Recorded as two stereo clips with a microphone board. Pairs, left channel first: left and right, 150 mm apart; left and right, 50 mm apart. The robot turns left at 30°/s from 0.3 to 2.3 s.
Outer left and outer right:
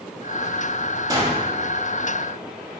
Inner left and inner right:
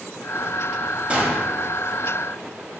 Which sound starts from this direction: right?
A gunshot, at 1.1 s.